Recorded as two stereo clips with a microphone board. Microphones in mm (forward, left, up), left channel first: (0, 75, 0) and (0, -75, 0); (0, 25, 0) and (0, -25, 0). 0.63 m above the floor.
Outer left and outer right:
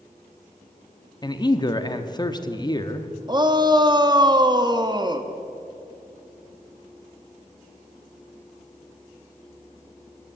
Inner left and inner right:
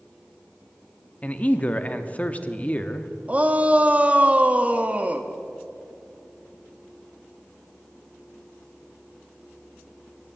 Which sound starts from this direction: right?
A shout, at 3.3 s.